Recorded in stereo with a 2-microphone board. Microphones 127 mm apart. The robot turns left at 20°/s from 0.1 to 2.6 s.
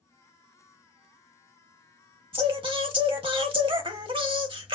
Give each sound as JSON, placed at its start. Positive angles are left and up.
{"t": 2.3, "sound": "singing", "side_deg": -45, "distance_m": 0.7}